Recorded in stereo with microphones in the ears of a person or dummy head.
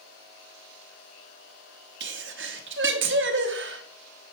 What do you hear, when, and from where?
2.0 s a sneeze: 55° right (ahead or behind), 0.9 m